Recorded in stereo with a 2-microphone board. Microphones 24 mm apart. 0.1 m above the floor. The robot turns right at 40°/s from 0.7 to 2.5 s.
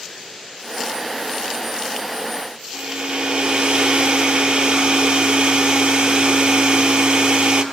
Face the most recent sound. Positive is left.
turn(degrees=-50)  # may be behind; listen again after turning